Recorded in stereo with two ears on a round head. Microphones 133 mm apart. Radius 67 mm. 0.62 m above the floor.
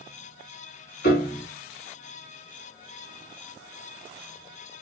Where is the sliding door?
No sliding door in this recording.